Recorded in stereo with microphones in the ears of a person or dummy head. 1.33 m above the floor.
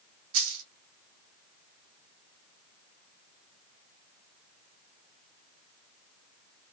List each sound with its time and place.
0.3 s a dropped coin: 45° right (ahead or behind), 2.0 m